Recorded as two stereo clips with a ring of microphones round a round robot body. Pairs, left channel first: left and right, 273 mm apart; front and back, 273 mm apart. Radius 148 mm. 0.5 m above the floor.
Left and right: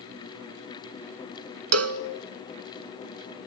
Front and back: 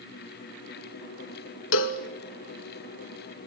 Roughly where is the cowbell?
Ahead right.